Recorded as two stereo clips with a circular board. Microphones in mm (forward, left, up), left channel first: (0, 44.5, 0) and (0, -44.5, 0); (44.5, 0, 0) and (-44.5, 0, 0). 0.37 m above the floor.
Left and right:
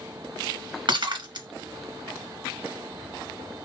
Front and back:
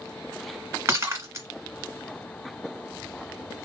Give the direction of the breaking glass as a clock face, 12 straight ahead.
4 o'clock.